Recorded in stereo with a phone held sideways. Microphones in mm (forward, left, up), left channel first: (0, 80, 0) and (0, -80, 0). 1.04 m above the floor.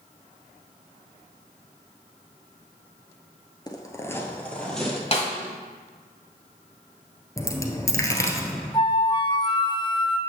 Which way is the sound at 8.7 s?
30° left (ahead or behind).